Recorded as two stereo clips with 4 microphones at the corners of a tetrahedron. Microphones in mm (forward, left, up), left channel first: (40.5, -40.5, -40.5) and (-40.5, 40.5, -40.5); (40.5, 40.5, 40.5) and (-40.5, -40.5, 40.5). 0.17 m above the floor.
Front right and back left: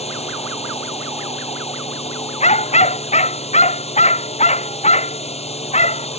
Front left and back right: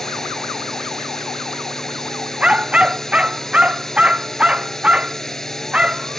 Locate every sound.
0.0 s a drone: 40° right
2.4 s a dog barking: 55° right